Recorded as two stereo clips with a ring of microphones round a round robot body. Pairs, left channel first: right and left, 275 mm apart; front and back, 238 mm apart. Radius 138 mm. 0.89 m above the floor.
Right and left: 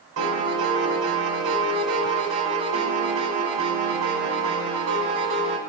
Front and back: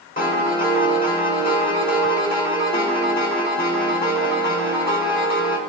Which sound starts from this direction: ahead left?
A piano, at 0.2 s.